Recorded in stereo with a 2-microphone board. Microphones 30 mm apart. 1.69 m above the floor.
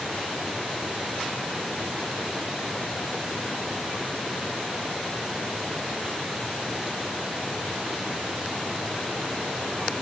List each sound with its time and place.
Only background noise.